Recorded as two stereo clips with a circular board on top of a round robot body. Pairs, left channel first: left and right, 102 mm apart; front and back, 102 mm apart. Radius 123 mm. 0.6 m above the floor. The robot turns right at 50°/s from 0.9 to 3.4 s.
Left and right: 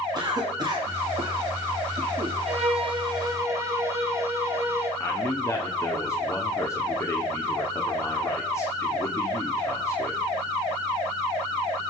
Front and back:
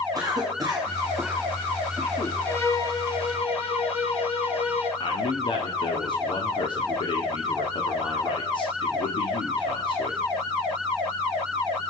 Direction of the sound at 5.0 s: 30° left.